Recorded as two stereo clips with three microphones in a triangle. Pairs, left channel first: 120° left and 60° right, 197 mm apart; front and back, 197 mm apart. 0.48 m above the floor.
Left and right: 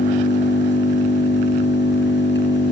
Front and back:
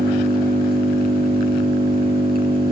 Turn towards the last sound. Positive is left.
turn(degrees=140)